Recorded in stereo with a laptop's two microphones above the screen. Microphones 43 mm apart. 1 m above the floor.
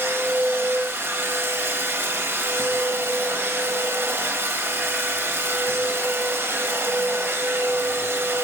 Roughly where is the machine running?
Right.